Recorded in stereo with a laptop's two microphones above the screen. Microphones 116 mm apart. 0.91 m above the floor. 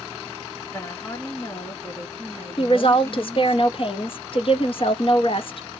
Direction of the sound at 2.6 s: 50° left (ahead or behind).